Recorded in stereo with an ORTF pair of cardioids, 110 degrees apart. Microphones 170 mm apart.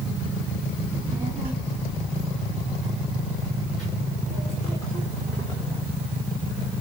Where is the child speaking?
20° right, 3 m; by 5.8 s 15° left, 5 m.